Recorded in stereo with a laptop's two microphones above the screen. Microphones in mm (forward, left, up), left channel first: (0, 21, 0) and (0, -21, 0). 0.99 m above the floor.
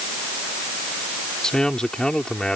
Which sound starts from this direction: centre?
A man speaking, at 1.4 s.